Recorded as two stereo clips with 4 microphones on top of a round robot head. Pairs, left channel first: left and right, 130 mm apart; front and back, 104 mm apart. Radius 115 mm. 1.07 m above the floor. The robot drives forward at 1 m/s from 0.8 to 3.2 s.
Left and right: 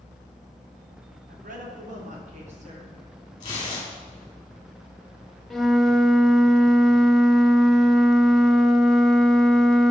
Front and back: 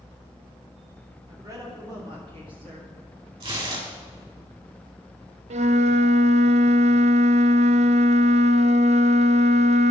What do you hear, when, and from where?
1.3 s a woman speaking: 110° right, 2.5 m; by 3.0 s 135° right, 3.5 m
3.4 s tearing paper: 150° left, 3.5 m
5.5 s a flute: straight behind, 0.7 m